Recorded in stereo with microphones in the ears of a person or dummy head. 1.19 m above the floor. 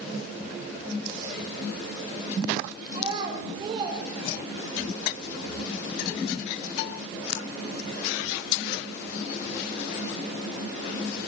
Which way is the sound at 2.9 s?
25° right (ahead or behind).